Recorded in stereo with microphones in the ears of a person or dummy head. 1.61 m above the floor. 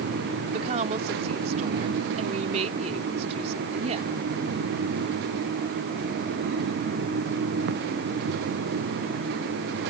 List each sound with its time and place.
0.5 s a woman speaking: 35° right (ahead or behind)